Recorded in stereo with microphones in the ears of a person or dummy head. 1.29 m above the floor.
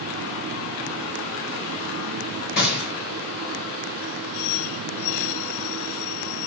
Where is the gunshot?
50° left (ahead or behind), 1.0 m.